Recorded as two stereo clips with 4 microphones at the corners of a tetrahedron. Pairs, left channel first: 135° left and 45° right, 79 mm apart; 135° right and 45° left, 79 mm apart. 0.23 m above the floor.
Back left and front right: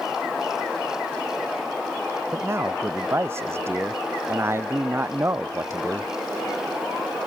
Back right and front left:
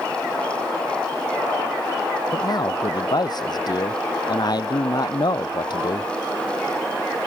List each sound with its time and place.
2.3 s a man speaking: 105° right